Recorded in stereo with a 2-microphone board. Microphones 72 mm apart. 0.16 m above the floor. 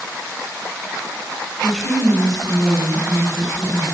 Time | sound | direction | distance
1.6 | a woman speaking | 10° right (ahead or behind) | 1.9 m